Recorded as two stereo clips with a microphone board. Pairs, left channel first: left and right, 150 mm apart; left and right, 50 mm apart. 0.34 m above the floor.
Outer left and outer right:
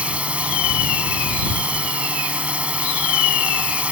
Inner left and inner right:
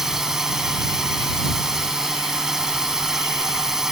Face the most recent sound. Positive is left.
turn(degrees=-10)  # may be behind; listen again after turning